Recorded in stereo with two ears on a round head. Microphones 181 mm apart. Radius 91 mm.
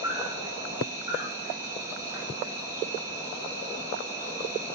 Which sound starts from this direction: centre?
An insect, at 0.0 s.